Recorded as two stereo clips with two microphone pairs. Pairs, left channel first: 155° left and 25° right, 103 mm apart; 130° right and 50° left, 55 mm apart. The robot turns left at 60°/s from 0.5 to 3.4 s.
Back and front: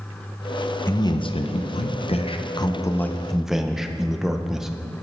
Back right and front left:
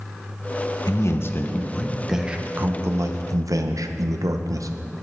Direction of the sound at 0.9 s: 150° right.